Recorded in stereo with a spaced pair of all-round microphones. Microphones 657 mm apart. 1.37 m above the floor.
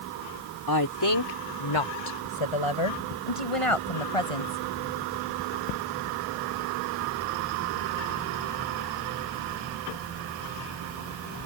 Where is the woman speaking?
30° left (ahead or behind); by 4.6 s 55° left (ahead or behind).